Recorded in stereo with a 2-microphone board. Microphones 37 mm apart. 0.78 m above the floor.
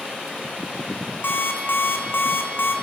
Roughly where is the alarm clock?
Left.